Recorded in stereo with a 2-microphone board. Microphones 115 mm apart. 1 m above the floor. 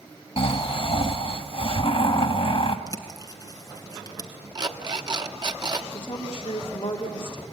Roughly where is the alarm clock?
Right.